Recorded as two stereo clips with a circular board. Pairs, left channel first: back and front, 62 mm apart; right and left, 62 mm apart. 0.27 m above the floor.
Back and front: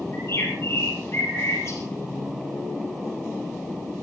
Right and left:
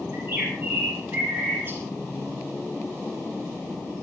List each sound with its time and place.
0.1 s a bird: 140° left, 7.5 m